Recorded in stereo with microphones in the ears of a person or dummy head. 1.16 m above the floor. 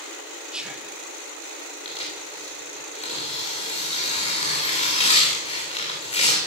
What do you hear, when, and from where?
0.5 s whispering: centre (ahead or behind), 1.7 m
1.9 s tearing paper: 35° left (ahead or behind), 3 m